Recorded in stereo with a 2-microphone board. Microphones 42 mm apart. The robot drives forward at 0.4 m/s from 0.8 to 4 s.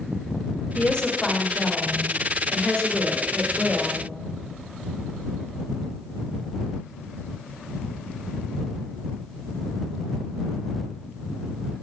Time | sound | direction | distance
0.8 | a woman speaking | 25° left (ahead or behind) | 1.1 m